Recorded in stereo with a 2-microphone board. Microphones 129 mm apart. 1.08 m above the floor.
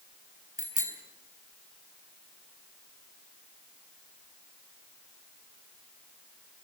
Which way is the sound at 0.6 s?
85° left.